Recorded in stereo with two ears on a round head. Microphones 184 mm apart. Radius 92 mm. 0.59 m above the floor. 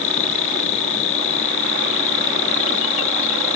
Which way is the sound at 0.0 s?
70° left (ahead or behind).